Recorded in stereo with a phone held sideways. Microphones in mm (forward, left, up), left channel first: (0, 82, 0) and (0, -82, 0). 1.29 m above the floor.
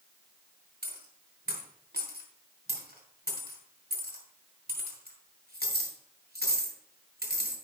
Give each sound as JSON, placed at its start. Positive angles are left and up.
{"t": 0.8, "sound": "a dropped coin", "side_deg": -75, "distance_m": 3.5}